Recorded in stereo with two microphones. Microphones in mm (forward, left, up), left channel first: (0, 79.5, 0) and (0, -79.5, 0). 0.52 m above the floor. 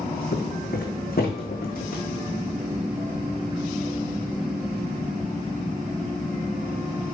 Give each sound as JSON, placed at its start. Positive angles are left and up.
{"t": 0.3, "sound": "footsteps", "side_deg": 70, "distance_m": 2.0}